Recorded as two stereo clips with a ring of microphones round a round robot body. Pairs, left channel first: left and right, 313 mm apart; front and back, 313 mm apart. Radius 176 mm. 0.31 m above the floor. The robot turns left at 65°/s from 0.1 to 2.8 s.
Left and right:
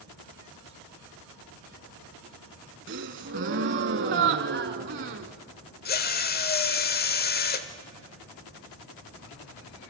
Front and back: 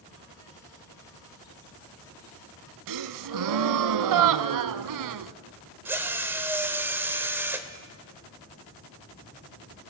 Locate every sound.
2.9 s a gasp: 150° right, 0.6 m
5.8 s a drill: 105° left, 1.0 m